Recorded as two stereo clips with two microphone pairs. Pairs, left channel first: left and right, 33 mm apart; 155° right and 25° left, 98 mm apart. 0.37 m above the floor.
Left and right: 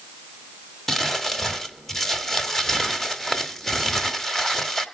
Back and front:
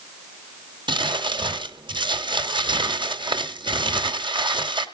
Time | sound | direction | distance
0.9 | crumpling | 10° left | 1.8 m